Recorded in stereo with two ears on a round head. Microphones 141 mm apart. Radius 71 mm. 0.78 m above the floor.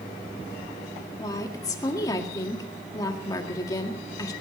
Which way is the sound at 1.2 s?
25° left (ahead or behind).